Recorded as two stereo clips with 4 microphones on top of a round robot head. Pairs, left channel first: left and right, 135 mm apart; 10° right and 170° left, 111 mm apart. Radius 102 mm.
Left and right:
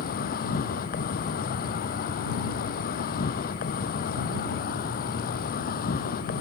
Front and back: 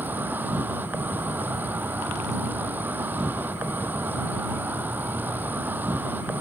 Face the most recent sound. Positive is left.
turn(degrees=95)